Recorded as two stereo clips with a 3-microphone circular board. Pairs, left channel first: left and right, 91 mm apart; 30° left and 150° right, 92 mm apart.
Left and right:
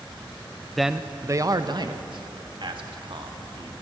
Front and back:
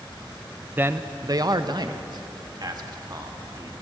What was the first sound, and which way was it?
A man speaking, 175° left.